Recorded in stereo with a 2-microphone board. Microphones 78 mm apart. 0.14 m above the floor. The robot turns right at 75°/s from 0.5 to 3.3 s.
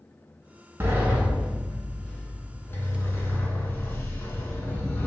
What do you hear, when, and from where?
0.8 s a sliding door: 65° right, 0.7 m; by 5.1 s 120° left, 0.7 m